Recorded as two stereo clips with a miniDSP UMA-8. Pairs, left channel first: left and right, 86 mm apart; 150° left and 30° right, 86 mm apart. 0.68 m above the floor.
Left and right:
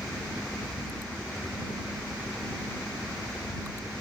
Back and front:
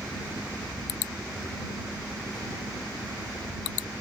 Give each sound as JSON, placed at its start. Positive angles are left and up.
{"t": 0.0, "sound": "a helicopter", "azimuth_deg": 170}